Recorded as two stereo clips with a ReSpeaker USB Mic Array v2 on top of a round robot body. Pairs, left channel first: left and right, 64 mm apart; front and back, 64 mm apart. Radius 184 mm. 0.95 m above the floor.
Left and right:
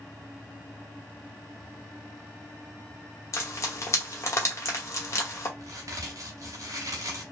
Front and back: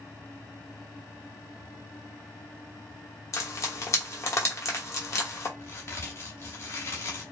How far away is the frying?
About 1.2 m.